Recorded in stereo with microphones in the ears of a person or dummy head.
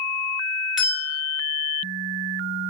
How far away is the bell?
About 0.6 m.